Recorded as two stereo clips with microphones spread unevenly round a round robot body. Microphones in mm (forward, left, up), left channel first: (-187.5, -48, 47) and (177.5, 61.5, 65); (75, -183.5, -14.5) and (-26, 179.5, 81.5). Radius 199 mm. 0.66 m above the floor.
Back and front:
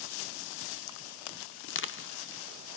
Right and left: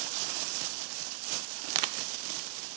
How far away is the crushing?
About 0.6 m.